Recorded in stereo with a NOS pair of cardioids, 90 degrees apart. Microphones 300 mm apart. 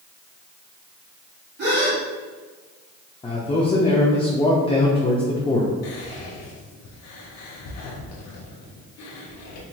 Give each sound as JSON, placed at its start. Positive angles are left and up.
{"t": 1.6, "sound": "a gasp", "azimuth_deg": -35, "distance_m": 1.8}
{"t": 3.2, "sound": "a man speaking", "azimuth_deg": 20, "distance_m": 0.7}
{"t": 5.8, "sound": "whispering", "azimuth_deg": 65, "distance_m": 0.8}